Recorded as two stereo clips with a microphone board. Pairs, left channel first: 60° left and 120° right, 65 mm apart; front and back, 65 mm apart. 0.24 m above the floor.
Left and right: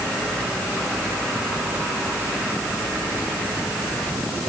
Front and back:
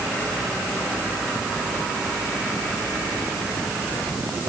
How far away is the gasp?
I don't hear a gasp.